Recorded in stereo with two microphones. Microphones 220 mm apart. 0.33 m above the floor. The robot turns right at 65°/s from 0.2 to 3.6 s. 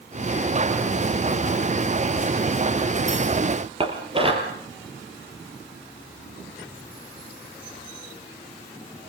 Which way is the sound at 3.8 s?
25° right (ahead or behind).